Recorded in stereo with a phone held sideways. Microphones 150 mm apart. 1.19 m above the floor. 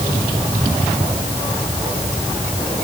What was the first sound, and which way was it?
Only background noise.